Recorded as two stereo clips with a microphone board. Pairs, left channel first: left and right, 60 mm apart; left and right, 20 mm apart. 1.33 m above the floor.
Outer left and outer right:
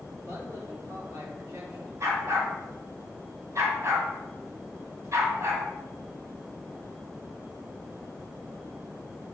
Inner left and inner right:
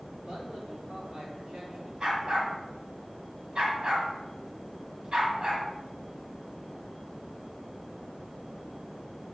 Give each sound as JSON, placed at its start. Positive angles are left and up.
{"t": 0.2, "sound": "a man speaking", "side_deg": -55, "distance_m": 3.0}
{"t": 2.0, "sound": "a dog barking", "side_deg": -55, "distance_m": 1.9}